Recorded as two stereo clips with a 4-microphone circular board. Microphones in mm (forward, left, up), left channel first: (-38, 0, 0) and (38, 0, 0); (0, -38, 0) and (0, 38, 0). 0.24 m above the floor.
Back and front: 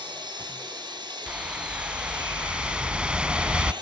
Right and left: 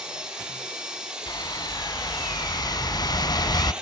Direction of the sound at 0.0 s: 10° left.